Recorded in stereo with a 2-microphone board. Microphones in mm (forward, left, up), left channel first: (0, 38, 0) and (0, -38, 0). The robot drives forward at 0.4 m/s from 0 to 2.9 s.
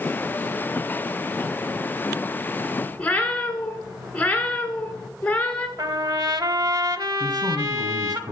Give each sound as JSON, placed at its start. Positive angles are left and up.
{"t": 3.0, "sound": "a cat meowing", "side_deg": 15, "distance_m": 2.0}
{"t": 5.8, "sound": "a trumpet", "side_deg": -65, "distance_m": 0.8}
{"t": 7.2, "sound": "a man speaking", "side_deg": -65, "distance_m": 2.5}